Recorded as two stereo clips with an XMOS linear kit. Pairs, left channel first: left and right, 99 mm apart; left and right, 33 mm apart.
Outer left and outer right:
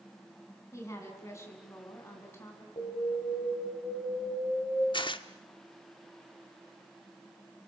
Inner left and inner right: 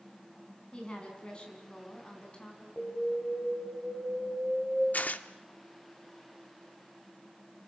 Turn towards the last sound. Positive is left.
turn(degrees=55)  # may be behind; listen again after turning